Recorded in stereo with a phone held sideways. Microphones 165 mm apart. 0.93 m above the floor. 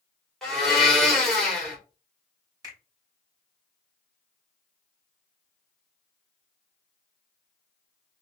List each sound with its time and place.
0.4 s a blender: centre (ahead or behind), 2 m
2.6 s a finger snap: 20° right (ahead or behind), 3 m